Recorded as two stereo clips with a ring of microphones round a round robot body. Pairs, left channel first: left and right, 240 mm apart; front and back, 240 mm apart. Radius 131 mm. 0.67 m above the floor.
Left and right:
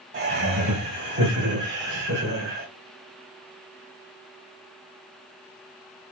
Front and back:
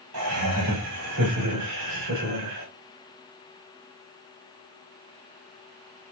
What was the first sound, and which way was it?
Laughter, 145° right.